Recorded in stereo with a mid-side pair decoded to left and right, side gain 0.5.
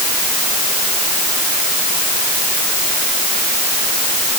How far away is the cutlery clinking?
I don't hear cutlery clinking.